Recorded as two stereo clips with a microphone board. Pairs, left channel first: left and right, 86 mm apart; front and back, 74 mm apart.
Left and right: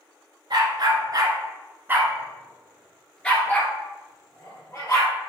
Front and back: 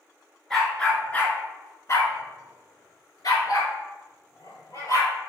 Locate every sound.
0.5 s a dog barking: 80° right, 1.1 m; by 5.1 s 35° left, 1.9 m